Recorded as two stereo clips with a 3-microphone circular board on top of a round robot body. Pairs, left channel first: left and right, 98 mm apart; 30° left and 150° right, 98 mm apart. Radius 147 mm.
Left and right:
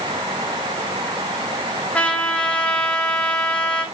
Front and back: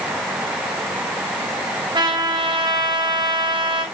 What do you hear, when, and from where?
1.9 s a trumpet: 170° left, 5.5 m